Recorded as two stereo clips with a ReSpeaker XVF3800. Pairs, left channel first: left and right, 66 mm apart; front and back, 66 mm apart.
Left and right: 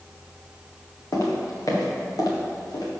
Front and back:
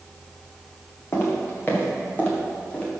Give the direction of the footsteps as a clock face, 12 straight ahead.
10 o'clock.